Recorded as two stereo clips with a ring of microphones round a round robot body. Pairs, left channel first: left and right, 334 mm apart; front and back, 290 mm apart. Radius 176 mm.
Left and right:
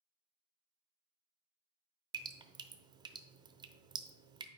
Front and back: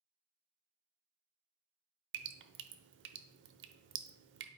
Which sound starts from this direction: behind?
Dripping, at 2.1 s.